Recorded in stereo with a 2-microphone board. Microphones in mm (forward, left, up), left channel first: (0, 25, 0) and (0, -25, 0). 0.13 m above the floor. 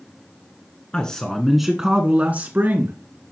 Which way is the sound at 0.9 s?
20° left (ahead or behind).